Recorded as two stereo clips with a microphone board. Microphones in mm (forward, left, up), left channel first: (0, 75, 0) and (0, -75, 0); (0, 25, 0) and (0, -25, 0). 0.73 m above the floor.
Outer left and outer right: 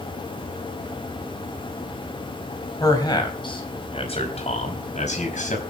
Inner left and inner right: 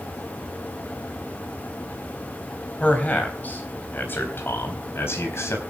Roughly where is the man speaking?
Left.